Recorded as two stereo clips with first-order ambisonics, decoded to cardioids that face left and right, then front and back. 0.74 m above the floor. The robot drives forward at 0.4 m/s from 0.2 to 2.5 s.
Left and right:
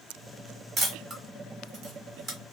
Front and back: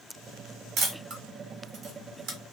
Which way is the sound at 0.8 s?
150° right.